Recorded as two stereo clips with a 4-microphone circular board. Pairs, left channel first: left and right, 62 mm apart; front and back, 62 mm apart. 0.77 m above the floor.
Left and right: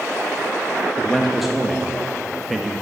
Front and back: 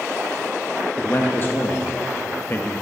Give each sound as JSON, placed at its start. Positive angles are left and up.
{"t": 1.0, "sound": "a man speaking", "azimuth_deg": -5, "distance_m": 0.8}